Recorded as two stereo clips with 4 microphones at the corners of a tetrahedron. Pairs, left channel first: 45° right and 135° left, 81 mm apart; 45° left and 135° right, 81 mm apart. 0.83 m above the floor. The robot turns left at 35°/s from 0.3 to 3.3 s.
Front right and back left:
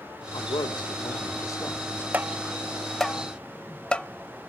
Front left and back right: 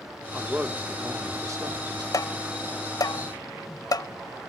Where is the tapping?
70° left, 0.8 m; by 4.1 s 30° left, 0.8 m.